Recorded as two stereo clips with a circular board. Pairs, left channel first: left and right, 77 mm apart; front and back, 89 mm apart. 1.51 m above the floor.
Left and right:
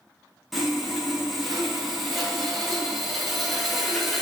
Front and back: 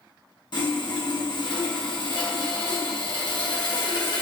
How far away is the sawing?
About 1.0 m.